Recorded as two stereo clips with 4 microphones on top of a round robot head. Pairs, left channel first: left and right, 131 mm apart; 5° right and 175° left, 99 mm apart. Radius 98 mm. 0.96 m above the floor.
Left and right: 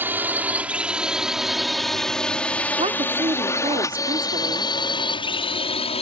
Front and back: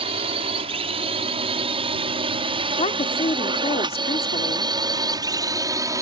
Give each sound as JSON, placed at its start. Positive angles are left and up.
{"t": 0.0, "sound": "a drone", "azimuth_deg": -165}
{"t": 2.8, "sound": "a woman speaking", "azimuth_deg": -35}